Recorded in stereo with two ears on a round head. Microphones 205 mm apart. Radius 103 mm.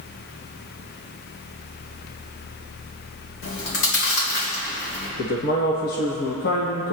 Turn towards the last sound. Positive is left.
turn(degrees=45)  # may be behind; listen again after turning